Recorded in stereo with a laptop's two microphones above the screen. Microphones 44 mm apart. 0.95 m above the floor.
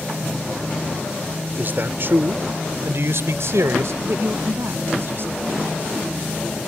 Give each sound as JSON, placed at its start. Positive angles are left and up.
{"t": 1.6, "sound": "a man speaking", "side_deg": -45}
{"t": 4.0, "sound": "a woman speaking", "side_deg": -55}